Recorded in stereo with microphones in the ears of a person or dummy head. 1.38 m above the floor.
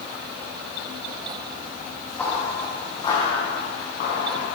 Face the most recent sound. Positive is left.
turn(degrees=55)  # may be behind; listen again after turning